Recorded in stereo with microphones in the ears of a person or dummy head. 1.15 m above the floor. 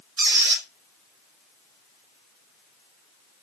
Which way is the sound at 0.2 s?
55° right (ahead or behind).